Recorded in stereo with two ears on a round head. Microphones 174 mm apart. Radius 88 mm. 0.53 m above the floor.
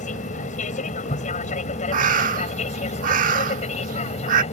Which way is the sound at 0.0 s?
40° left (ahead or behind).